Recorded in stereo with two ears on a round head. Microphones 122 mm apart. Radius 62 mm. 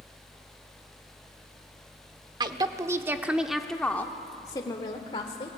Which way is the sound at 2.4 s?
30° right (ahead or behind).